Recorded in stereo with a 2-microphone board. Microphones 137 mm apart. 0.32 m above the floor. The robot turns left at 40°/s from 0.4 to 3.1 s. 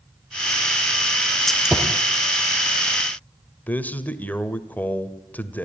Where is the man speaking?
10° left (ahead or behind), 1.2 m.